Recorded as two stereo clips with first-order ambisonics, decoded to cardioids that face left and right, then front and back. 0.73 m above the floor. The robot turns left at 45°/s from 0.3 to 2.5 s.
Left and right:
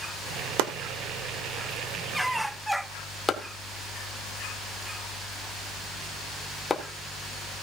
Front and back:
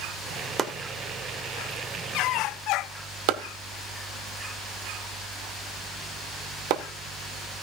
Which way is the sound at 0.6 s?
105° right.